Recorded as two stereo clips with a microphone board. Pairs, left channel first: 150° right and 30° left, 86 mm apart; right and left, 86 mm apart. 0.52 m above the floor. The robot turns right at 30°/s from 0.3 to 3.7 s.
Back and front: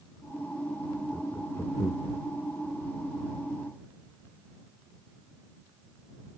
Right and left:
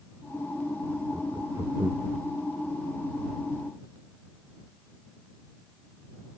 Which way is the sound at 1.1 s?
130° left.